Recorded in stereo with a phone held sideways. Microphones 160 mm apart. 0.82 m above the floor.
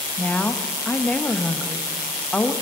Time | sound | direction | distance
0.2 | a woman speaking | 10° left (ahead or behind) | 0.7 m